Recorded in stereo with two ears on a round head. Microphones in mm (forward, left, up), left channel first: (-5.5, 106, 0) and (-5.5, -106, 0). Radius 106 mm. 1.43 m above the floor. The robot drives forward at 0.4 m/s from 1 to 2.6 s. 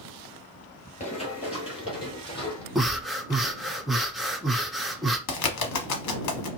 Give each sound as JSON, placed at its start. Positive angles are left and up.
{"t": 1.0, "sound": "running footsteps", "side_deg": 30, "distance_m": 1.9}
{"t": 2.8, "sound": "breathing", "side_deg": 0, "distance_m": 0.7}
{"t": 5.3, "sound": "a bird", "side_deg": 80, "distance_m": 1.0}